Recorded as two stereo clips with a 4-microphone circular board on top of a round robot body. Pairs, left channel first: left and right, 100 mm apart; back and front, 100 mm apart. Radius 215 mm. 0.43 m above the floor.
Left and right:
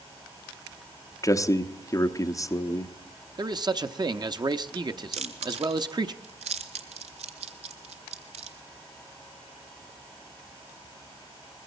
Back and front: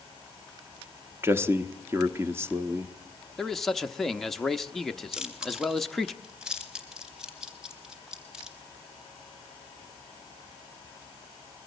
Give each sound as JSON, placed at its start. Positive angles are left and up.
{"t": 1.2, "sound": "a man speaking", "azimuth_deg": 55, "distance_m": 1.1}
{"t": 3.4, "sound": "a man speaking", "azimuth_deg": -95, "distance_m": 0.8}
{"t": 5.1, "sound": "chewing", "azimuth_deg": -85, "distance_m": 0.7}